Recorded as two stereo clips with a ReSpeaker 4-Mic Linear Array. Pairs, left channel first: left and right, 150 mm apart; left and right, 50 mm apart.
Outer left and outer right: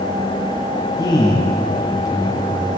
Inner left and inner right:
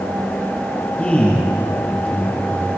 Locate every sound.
1.0 s a man speaking: 20° left (ahead or behind), 5.5 m